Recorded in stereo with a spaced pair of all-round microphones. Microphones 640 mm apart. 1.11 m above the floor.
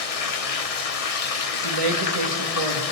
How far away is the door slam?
No door slam in this recording.